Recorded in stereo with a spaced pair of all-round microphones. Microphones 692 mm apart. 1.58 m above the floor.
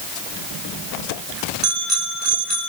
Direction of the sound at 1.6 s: 75° right (ahead or behind).